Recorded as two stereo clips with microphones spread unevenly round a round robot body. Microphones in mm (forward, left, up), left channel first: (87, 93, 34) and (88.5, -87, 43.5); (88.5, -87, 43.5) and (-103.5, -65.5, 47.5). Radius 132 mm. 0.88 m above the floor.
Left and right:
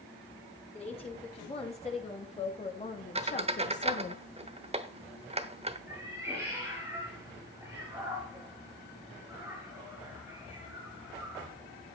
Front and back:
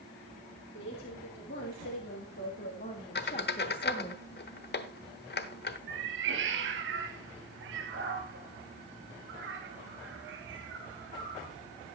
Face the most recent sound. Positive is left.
turn(degrees=-170)